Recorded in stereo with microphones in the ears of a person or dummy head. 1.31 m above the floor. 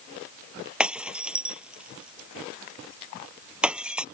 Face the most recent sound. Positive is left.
turn(degrees=0)  # may be behind; listen again after turning